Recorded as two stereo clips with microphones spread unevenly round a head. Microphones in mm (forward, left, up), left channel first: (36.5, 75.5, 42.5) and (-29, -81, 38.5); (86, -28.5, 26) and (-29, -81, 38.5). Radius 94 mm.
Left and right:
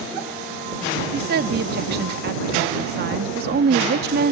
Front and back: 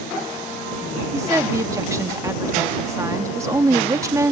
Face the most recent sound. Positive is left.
turn(degrees=-90)